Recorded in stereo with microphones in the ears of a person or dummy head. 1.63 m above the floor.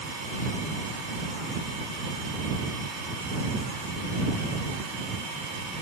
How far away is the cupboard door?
I don't hear a cupboard door.